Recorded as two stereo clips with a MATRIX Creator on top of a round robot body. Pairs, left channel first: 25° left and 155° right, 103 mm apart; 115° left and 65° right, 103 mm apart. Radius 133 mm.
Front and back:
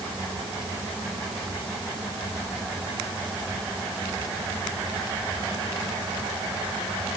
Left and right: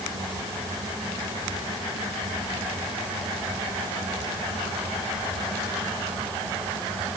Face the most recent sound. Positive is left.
No sound to turn to.